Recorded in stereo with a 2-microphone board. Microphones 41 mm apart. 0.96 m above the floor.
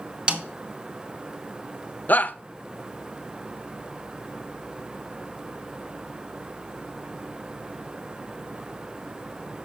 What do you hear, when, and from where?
0.3 s a snare drum: 25° right (ahead or behind), 1.1 m
2.1 s a shout: 45° left (ahead or behind), 0.5 m